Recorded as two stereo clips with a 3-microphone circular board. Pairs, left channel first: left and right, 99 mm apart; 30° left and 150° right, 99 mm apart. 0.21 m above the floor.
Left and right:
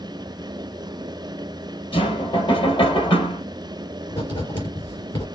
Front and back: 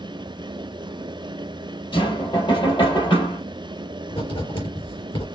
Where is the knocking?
60° left, 3 m.